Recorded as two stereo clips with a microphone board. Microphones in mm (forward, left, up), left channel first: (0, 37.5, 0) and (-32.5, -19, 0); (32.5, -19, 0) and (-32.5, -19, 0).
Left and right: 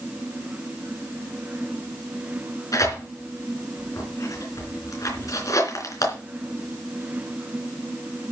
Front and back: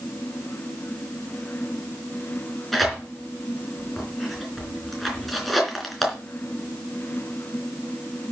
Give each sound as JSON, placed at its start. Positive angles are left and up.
{"t": 2.7, "sound": "tearing paper", "azimuth_deg": 90, "distance_m": 3.5}